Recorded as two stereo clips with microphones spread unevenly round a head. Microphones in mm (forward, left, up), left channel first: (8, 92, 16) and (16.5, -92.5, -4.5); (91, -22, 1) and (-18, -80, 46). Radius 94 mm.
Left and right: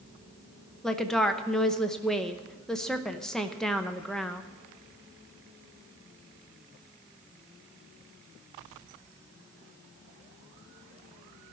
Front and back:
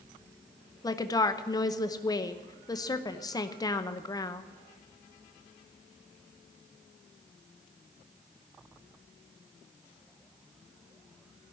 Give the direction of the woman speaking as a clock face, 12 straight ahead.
12 o'clock.